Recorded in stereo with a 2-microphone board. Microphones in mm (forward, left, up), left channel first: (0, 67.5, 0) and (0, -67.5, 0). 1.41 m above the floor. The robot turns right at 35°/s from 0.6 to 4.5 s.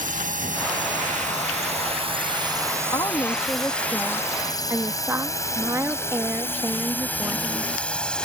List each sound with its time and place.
0.0 s a drone: 85° right; by 8.2 s 5° left (ahead or behind)
2.9 s a woman speaking: 145° left; by 7.8 s 160° right